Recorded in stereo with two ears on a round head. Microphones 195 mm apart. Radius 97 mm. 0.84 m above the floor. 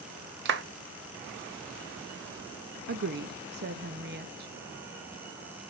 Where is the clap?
55° right (ahead or behind), 1.0 m.